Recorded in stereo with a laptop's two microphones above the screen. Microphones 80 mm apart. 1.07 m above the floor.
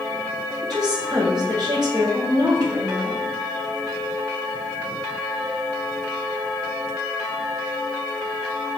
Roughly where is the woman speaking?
Right.